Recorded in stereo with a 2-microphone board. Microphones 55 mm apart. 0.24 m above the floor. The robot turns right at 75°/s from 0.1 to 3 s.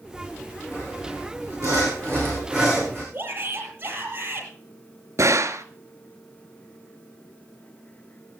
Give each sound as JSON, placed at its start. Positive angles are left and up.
{"t": 0.7, "sound": "sawing", "azimuth_deg": -160, "distance_m": 9.5}
{"t": 3.1, "sound": "a shout", "side_deg": -35, "distance_m": 7.0}
{"t": 5.2, "sound": "a gunshot", "side_deg": -80, "distance_m": 1.1}